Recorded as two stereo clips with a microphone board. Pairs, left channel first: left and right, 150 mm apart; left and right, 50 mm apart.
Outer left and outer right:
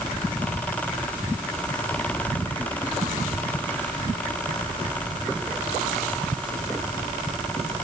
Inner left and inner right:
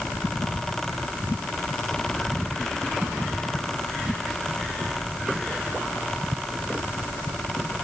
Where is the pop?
No pop in this recording.